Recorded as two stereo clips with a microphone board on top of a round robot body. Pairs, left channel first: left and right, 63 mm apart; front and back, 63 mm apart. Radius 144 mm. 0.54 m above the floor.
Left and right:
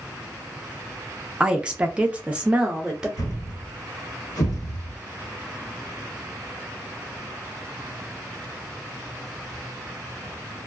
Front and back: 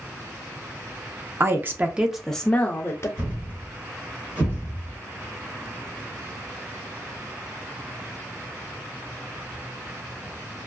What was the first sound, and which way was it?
A woman speaking, 160° right.